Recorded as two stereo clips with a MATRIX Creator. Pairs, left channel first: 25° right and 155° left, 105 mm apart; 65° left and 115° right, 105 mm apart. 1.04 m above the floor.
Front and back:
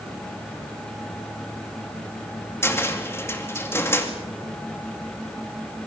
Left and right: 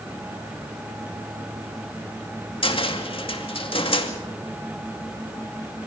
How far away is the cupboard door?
About 2.5 m.